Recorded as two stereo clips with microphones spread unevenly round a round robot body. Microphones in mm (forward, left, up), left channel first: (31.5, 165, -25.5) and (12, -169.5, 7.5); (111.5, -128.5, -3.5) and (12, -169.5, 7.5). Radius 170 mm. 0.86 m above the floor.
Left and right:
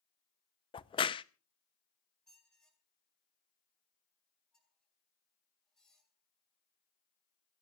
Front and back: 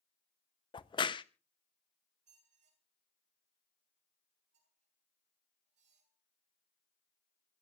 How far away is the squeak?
About 2.5 m.